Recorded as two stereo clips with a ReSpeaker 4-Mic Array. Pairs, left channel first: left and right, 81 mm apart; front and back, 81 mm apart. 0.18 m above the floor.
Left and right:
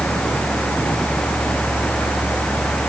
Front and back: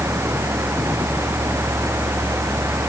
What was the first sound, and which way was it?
Only background noise.